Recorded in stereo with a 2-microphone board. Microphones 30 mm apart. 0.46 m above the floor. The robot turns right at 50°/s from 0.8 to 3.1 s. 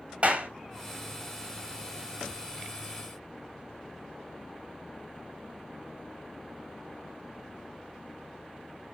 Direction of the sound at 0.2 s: 45° right (ahead or behind).